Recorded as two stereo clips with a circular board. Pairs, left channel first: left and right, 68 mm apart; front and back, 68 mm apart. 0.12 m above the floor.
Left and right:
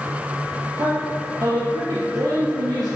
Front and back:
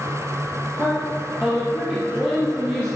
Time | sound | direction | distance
0.8 | a woman speaking | 110° right | 3.5 m